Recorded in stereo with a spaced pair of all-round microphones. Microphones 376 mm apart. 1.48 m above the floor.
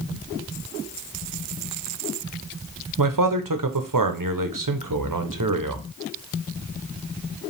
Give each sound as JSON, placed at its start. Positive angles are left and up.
{"t": 3.0, "sound": "a man speaking", "side_deg": -65, "distance_m": 0.7}